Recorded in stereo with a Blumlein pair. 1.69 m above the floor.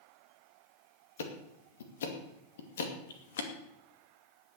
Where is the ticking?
60° left, 2.5 m.